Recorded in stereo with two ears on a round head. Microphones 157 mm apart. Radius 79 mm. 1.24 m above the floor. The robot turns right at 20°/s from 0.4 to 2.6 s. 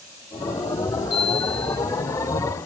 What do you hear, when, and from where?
1.1 s a chime: 80° left, 7.5 m; by 1.8 s 65° left (ahead or behind), 7.5 m